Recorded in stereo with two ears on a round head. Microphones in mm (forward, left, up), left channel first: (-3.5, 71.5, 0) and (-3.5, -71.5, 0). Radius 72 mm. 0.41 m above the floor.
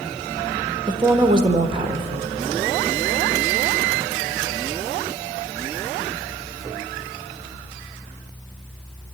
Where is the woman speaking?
35° right (ahead or behind), 1.4 m.